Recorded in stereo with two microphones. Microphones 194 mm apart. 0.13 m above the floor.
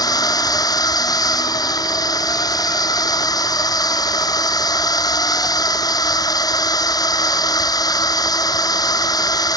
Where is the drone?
20° left (ahead or behind).